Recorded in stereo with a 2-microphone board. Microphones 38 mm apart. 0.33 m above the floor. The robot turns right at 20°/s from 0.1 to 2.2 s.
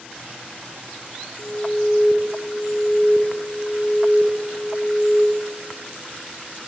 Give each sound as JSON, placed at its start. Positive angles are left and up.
{"t": 1.4, "sound": "an alarm", "side_deg": 45, "distance_m": 4.5}